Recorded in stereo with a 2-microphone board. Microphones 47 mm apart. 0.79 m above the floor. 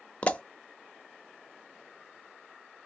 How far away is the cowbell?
No cowbell in this recording.